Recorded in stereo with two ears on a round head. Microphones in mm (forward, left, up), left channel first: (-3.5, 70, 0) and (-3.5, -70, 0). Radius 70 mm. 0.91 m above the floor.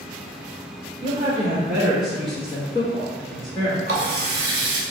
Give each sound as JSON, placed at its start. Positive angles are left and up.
{"t": 1.0, "sound": "a woman speaking", "side_deg": -30, "distance_m": 1.0}
{"t": 3.9, "sound": "a running tap", "side_deg": -55, "distance_m": 1.1}